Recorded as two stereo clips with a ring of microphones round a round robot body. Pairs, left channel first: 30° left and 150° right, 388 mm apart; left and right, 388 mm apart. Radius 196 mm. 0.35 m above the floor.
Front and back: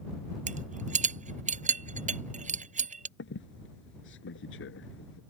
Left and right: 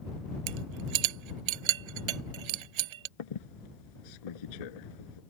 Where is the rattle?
80° right.